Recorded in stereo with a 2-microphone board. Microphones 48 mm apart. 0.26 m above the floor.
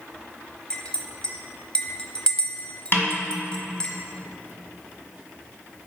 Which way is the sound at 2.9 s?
50° left (ahead or behind).